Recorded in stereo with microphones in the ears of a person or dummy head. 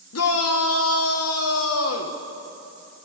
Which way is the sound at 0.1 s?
70° left (ahead or behind).